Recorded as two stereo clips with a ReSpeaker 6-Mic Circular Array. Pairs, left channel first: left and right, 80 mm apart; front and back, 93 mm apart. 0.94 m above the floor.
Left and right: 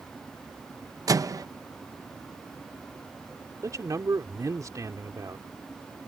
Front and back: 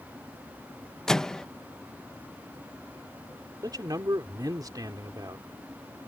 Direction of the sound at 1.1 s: 80° right.